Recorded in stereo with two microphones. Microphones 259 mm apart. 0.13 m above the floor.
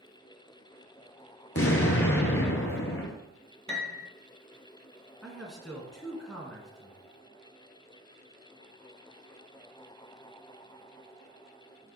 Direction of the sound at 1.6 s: 60° left (ahead or behind).